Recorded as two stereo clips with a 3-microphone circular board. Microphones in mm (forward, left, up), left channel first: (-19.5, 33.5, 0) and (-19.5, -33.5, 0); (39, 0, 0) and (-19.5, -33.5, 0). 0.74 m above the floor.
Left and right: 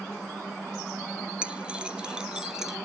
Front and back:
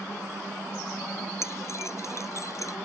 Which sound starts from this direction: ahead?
Keys jangling, at 1.4 s.